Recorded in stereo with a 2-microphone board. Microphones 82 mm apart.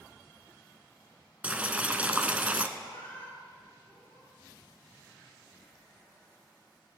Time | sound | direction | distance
1.4 | boiling | 20° right (ahead or behind) | 0.6 m
2.8 | a cat meowing | 25° left (ahead or behind) | 4.5 m